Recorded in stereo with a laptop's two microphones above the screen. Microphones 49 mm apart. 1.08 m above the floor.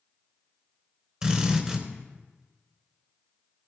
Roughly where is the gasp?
No gasp in this recording.